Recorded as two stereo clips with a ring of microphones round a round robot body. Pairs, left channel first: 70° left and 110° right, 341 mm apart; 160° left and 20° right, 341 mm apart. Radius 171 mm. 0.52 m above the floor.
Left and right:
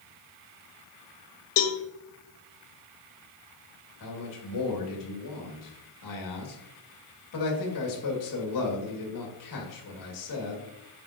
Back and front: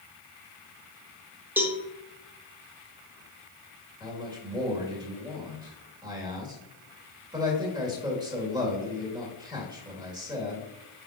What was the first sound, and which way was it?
A cowbell, 60° left.